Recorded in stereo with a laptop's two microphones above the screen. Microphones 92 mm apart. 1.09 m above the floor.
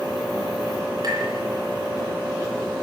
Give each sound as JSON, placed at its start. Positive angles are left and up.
{"t": 1.0, "sound": "tapping", "side_deg": -45, "distance_m": 9.5}